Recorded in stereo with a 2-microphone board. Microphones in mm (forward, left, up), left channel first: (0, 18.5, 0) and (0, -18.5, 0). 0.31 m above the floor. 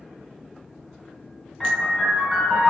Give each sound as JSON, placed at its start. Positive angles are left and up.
{"t": 1.6, "sound": "a piano", "side_deg": 5, "distance_m": 1.4}